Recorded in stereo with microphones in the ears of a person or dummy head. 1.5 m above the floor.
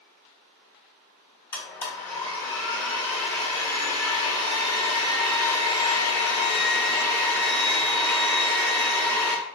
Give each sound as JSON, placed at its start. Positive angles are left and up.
{"t": 1.5, "sound": "a blender", "side_deg": 20, "distance_m": 1.4}